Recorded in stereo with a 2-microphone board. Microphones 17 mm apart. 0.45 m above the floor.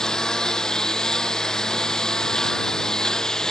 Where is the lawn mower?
45° left (ahead or behind).